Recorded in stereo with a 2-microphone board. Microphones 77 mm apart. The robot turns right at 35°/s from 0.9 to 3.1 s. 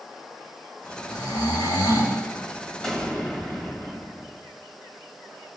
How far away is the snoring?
About 5.5 m.